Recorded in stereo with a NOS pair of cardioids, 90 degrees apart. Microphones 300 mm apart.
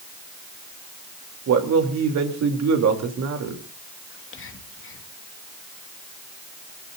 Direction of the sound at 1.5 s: 60° right.